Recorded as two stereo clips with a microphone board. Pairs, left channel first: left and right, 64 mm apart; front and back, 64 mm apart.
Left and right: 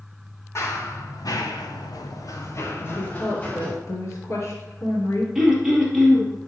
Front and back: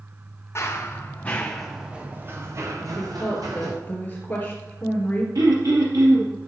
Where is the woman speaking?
60° left, 3 m.